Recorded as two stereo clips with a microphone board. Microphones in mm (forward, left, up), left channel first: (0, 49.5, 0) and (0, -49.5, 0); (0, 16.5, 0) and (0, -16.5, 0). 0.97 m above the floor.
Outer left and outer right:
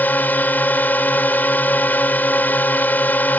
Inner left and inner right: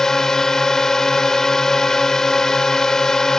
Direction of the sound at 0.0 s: 20° left (ahead or behind).